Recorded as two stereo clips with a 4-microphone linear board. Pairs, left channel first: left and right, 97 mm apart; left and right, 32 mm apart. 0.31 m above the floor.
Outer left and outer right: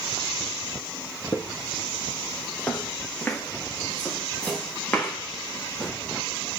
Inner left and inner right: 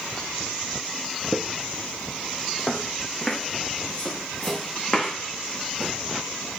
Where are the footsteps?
30° left (ahead or behind), 1.0 m; by 5.9 s 10° left (ahead or behind), 3.5 m.